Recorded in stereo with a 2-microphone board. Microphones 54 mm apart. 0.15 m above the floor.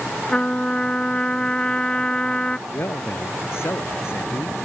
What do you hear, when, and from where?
0.3 s a trumpet: 20° left (ahead or behind)
2.7 s a man speaking: 55° left (ahead or behind)